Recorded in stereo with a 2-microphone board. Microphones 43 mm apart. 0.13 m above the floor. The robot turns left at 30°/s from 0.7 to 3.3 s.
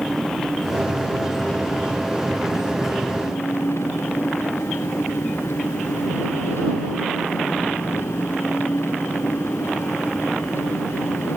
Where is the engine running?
170° left; by 11.4 s 90° left.